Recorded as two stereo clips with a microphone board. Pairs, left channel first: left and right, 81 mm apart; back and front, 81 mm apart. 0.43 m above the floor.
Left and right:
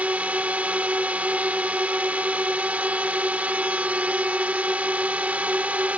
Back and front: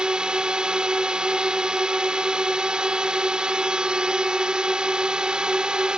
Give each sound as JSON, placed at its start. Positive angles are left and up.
{"t": 0.0, "sound": "a drone", "azimuth_deg": -55}